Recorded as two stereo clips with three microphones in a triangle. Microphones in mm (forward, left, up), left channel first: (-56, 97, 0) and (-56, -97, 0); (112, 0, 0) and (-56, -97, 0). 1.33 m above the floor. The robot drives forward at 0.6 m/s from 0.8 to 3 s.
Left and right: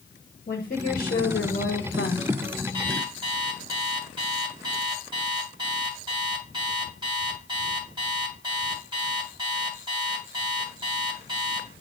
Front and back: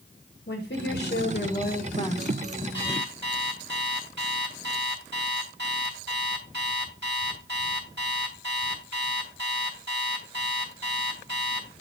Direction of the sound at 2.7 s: 155° right.